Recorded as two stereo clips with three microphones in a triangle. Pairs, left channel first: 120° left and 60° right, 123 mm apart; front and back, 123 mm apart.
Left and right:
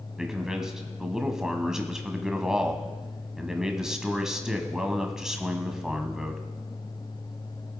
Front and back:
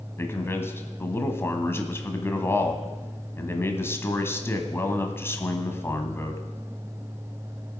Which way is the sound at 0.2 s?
15° left.